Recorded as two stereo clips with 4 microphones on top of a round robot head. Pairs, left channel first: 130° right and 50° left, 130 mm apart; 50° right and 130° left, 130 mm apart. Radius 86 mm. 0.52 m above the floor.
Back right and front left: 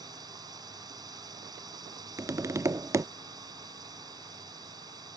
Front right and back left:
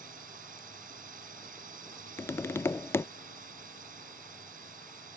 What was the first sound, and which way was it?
A drone, 110° left.